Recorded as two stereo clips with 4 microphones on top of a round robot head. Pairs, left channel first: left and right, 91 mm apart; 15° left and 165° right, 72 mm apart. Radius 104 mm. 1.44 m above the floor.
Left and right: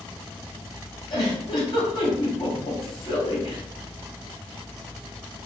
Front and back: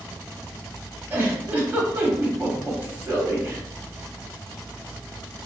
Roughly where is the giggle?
Behind left.